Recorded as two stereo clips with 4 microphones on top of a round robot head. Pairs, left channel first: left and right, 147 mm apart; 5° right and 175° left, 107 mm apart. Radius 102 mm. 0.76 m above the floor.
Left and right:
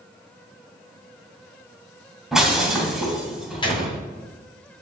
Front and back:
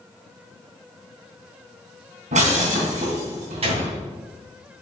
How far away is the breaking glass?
About 3 m.